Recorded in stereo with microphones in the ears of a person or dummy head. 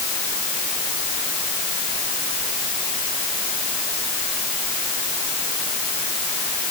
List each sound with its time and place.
Only background noise.